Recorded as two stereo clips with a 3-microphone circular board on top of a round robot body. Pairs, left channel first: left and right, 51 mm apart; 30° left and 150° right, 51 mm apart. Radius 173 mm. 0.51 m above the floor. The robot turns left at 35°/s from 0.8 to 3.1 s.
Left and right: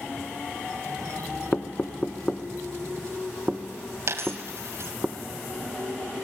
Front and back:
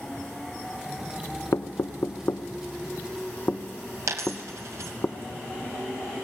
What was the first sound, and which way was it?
Knocking, 35° left.